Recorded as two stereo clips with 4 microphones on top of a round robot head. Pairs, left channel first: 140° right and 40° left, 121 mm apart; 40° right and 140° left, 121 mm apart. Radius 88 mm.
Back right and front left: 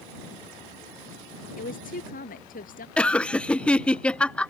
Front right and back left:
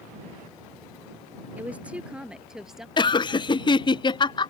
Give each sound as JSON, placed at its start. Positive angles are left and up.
{"t": 1.6, "sound": "a woman speaking", "azimuth_deg": -145}
{"t": 3.0, "sound": "laughter", "azimuth_deg": -60}